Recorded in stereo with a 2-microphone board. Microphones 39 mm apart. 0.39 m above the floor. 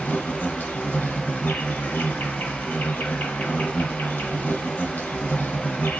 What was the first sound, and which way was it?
An insect, 65° left (ahead or behind).